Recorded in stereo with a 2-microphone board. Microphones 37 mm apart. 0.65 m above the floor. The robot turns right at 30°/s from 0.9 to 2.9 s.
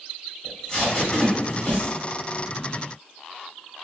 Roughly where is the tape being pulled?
Left.